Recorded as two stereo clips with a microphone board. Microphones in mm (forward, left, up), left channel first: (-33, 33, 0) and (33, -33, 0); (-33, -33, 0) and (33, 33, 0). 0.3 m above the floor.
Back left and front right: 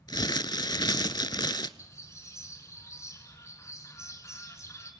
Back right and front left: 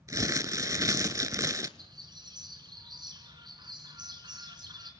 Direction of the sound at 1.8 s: 80° left.